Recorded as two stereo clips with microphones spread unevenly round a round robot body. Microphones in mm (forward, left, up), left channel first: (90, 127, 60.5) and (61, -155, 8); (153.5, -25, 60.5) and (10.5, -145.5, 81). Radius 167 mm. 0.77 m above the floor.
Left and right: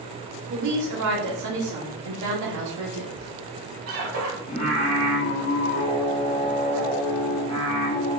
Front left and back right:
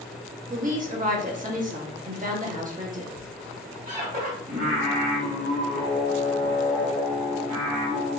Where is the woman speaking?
90° right, 1.8 m.